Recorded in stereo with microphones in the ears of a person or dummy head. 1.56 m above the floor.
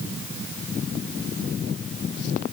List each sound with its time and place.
Only background noise.